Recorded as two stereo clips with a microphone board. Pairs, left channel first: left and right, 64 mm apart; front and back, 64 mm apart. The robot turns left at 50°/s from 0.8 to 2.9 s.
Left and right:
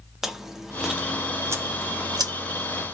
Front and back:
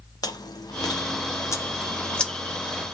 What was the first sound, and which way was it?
Chewing, 5° right.